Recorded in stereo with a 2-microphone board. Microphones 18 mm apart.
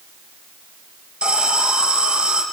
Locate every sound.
1.2 s an alarm: 75° right (ahead or behind), 6.5 m